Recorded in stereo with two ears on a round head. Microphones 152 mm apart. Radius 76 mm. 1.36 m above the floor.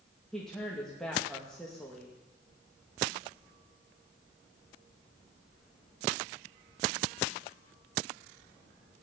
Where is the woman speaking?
5° left (ahead or behind), 2 m.